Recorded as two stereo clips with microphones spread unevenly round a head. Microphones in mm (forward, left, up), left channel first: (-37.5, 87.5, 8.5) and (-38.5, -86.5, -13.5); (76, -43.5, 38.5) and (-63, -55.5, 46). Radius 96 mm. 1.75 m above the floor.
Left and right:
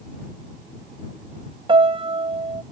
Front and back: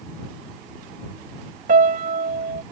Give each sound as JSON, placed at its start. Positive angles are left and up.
{"t": 1.7, "sound": "a piano", "azimuth_deg": -150}